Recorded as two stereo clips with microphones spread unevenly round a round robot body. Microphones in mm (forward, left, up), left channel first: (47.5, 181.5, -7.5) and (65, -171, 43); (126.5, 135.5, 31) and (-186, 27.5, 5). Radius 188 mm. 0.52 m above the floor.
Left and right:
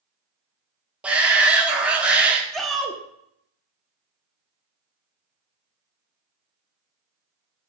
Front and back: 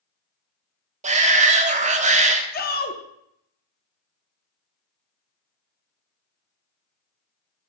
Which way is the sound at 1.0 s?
175° left.